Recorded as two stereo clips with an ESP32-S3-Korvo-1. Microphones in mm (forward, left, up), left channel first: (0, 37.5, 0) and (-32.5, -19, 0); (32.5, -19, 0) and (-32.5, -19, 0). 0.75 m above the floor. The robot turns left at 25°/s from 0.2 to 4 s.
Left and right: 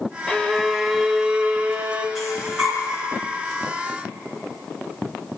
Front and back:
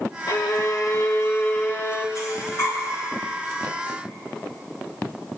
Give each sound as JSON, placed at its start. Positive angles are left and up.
{"t": 0.3, "sound": "a violin", "azimuth_deg": -15, "distance_m": 0.9}
{"t": 2.1, "sound": "breathing", "azimuth_deg": -30, "distance_m": 3.0}